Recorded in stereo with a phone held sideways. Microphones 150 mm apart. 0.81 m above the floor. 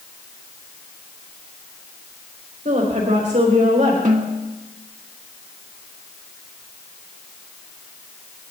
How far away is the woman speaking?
About 4 m.